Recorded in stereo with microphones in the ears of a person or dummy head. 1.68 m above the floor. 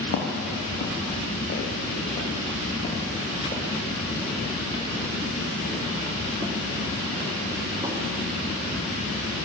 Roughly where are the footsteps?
Left.